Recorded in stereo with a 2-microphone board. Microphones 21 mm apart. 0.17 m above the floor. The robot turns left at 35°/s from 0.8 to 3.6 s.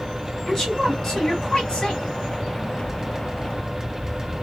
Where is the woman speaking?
140° left, 1.8 m; by 2.0 s 100° left, 1.8 m.